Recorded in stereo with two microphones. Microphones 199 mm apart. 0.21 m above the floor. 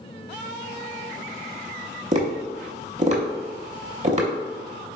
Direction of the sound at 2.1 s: 35° right (ahead or behind).